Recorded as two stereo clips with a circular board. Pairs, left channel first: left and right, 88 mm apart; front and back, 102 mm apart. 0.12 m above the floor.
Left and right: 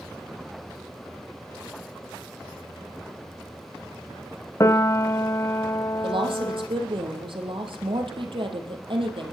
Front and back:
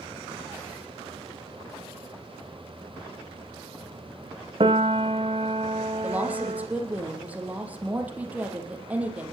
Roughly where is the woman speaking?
Right.